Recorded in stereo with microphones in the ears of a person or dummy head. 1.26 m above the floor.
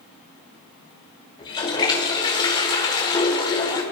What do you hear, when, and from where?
1.4 s a toilet flushing: 20° left (ahead or behind), 1.2 m